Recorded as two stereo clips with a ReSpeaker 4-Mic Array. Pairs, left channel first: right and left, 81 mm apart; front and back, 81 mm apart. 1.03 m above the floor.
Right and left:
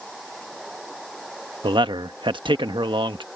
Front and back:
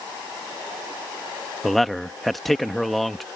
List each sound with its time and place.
1.6 s a man speaking: 90° left